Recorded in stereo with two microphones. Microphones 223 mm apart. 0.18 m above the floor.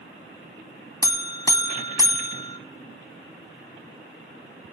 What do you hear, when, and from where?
1.0 s a buzzer: 15° left (ahead or behind), 0.6 m